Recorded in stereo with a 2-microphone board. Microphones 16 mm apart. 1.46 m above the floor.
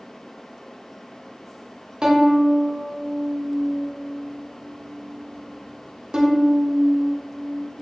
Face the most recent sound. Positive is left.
turn(degrees=-55)  # may be behind; listen again after turning